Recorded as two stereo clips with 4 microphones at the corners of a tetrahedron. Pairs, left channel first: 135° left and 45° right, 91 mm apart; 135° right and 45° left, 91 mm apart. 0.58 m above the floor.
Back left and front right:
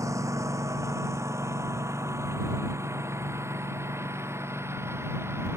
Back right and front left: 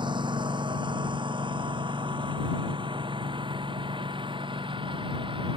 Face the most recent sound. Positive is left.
turn(degrees=20)